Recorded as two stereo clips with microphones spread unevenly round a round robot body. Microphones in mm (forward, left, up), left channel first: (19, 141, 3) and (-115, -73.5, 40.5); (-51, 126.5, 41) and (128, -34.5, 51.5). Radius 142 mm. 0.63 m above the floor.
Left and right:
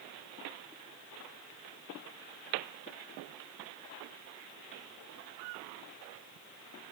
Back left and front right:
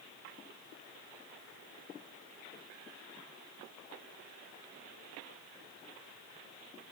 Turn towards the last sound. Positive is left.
No sound to turn to.